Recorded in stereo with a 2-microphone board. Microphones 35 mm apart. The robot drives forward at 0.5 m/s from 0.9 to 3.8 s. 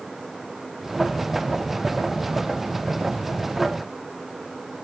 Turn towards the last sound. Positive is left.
No sound to turn to.